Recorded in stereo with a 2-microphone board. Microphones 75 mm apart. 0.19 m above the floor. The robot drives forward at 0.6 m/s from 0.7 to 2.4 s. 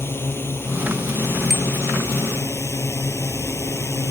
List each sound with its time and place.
0.0 s a drone: 30° left (ahead or behind); by 4.1 s 35° left (ahead or behind)
1.5 s a bicycle bell: centre (ahead or behind)